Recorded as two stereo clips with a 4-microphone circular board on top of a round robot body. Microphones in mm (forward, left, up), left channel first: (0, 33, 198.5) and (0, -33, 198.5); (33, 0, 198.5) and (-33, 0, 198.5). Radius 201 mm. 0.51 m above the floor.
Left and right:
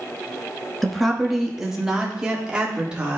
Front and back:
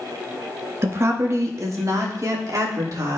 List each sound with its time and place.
0.8 s a woman speaking: 175° left, 1.2 m; by 3.2 s 160° right, 2 m